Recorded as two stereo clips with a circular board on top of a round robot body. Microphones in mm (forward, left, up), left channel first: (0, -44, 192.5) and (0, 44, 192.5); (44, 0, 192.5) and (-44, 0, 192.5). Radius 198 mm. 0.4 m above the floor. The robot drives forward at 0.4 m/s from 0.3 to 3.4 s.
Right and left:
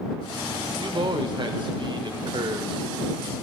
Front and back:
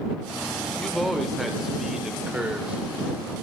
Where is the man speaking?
85° left, 2.5 m; by 3.4 s 115° left, 2.5 m.